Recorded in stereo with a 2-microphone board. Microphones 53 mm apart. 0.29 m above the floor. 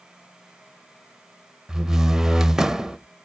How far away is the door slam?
About 0.6 m.